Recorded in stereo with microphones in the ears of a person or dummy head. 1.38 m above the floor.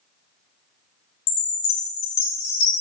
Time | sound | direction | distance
1.3 | a chime | 75° left (ahead or behind) | 0.9 m